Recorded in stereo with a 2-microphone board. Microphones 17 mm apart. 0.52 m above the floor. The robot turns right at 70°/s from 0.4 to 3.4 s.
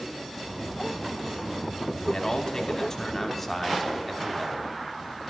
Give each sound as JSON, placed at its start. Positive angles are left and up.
{"t": 2.0, "sound": "a man speaking", "azimuth_deg": 70, "distance_m": 1.1}